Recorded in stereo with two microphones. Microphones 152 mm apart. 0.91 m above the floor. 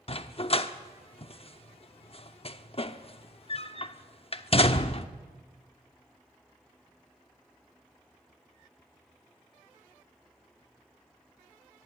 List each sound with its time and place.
0.1 s a dog barking: 40° left (ahead or behind), 0.8 m